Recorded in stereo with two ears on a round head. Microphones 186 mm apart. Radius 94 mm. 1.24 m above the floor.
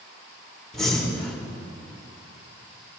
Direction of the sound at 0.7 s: 5° left (ahead or behind).